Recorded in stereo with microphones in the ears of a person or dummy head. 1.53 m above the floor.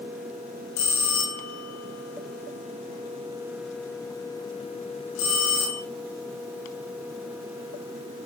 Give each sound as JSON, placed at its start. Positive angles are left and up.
{"t": 0.8, "sound": "a bell", "side_deg": 80, "distance_m": 6.0}